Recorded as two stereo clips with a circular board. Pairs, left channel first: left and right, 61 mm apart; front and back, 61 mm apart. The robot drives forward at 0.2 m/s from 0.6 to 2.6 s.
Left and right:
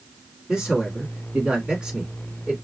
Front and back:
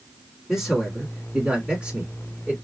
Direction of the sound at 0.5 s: 120° right.